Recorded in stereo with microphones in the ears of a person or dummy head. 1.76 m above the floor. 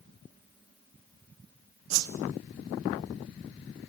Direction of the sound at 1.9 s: 85° right.